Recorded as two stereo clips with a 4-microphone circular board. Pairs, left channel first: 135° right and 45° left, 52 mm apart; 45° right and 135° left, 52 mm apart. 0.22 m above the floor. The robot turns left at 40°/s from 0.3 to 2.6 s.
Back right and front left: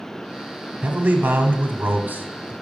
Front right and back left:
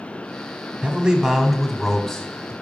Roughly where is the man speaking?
Left.